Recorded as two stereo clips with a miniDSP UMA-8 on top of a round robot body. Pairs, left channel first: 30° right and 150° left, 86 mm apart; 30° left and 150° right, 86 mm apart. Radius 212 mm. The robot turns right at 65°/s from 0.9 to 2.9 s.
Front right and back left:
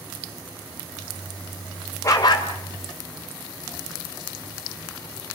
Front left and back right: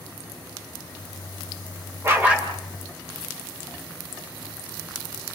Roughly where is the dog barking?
Right.